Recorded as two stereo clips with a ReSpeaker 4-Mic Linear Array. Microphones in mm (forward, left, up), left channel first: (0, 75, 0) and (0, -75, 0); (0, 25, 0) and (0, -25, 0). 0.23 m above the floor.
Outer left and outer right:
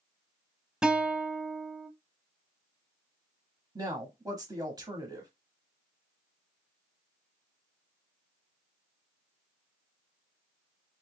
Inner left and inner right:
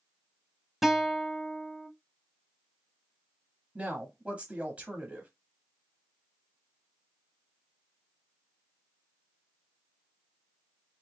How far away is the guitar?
About 0.6 m.